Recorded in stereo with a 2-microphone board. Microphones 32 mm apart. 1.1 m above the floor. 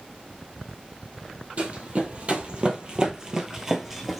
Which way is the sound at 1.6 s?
45° right (ahead or behind).